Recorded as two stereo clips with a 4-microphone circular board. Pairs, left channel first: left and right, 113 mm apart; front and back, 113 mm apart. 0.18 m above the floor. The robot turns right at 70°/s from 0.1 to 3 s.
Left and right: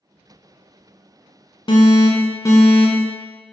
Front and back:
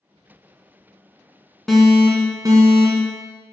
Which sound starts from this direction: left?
An alarm, at 1.7 s.